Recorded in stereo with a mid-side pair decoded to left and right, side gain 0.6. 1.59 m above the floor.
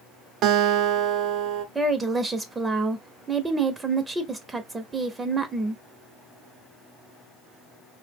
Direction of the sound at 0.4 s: 60° right.